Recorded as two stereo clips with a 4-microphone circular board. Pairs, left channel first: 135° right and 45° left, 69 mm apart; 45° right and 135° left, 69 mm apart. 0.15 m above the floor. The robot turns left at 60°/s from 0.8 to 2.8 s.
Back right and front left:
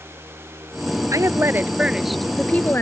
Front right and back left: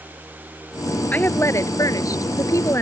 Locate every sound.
1.1 s a woman speaking: 15° left; by 2.8 s 85° right